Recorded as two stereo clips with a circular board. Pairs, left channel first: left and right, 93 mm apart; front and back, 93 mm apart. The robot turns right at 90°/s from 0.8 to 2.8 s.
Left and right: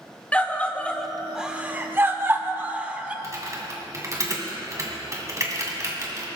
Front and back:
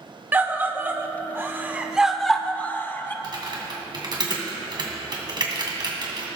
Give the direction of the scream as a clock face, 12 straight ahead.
7 o'clock.